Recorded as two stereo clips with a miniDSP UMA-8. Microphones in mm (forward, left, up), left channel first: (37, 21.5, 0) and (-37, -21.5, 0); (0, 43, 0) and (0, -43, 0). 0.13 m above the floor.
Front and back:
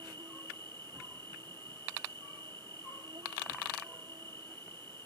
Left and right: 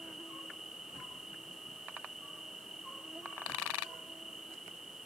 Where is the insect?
175° right.